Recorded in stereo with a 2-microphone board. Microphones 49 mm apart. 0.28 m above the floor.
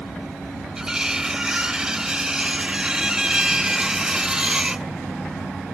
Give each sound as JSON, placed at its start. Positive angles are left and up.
{"t": 0.8, "sound": "cutlery clinking", "side_deg": -15}